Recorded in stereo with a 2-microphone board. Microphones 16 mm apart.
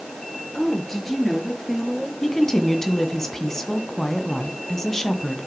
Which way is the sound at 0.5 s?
30° left (ahead or behind).